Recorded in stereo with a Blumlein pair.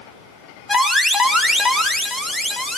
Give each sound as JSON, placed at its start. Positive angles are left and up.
{"t": 0.7, "sound": "an alarm", "azimuth_deg": 5, "distance_m": 2.5}